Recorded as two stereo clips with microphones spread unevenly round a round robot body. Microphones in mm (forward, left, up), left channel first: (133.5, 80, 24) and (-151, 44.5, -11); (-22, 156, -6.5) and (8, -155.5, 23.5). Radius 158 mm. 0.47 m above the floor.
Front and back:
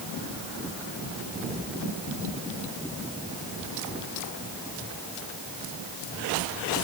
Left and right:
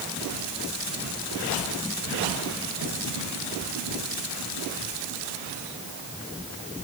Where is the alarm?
I don't hear an alarm.